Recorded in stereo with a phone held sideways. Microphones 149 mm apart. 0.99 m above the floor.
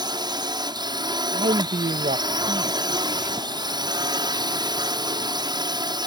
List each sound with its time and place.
0.0 s a drone: 30° right (ahead or behind)
1.3 s a man speaking: 60° right (ahead or behind)